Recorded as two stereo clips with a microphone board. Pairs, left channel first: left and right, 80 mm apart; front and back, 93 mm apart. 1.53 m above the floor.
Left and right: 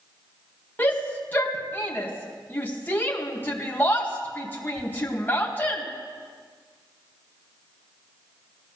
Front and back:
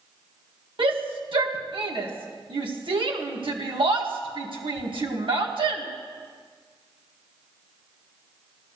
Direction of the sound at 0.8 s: 155° left.